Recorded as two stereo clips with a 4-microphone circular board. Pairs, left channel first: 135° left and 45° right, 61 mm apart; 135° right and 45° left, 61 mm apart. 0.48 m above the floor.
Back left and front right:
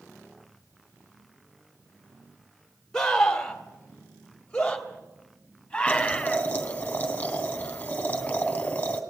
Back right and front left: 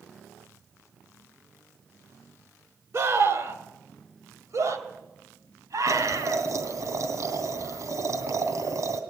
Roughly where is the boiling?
Left.